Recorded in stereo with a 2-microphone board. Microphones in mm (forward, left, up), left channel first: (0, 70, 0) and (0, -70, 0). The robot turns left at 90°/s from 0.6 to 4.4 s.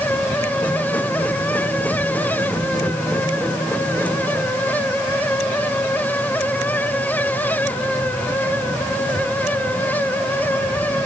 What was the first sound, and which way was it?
Only background noise.